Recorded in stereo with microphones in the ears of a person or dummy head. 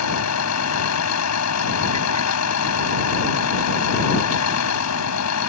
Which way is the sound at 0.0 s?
85° left.